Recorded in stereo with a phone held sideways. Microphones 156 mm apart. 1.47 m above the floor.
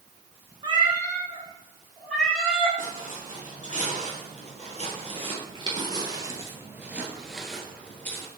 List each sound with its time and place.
0.6 s a cat meowing: 35° right (ahead or behind), 1.2 m; by 2.7 s 5° left (ahead or behind), 3 m
2.8 s footsteps: 60° right (ahead or behind), 3 m; by 8.3 s 15° left (ahead or behind), 1.6 m